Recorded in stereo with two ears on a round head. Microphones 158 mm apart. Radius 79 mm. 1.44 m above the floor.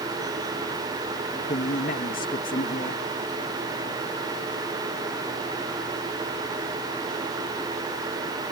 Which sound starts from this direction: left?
A man speaking, at 1.5 s.